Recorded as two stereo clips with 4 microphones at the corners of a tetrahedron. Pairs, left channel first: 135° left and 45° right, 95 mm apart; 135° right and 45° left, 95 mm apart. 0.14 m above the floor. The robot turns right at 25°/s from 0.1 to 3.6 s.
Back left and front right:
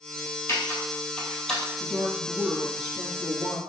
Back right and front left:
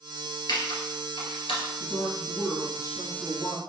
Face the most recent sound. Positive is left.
turn(degrees=-95)